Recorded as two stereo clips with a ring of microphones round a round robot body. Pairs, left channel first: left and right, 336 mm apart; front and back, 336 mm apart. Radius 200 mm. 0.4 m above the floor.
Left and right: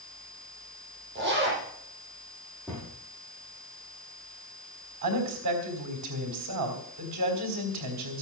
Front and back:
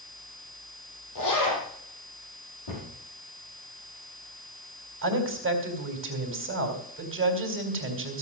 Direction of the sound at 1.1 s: 30° right.